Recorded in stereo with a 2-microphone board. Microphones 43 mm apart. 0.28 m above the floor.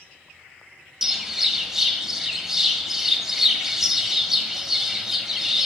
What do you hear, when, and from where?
1.0 s a bird: 10° right (ahead or behind), 1.7 m